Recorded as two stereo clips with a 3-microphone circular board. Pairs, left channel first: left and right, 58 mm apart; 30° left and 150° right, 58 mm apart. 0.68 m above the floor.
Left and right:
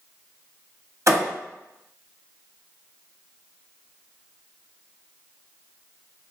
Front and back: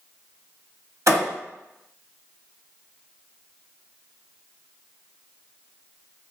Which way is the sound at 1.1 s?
120° right.